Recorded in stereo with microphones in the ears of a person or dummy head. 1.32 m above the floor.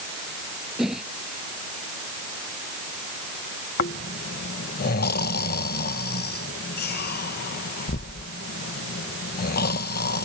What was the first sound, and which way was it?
A whoosh, centre (ahead or behind).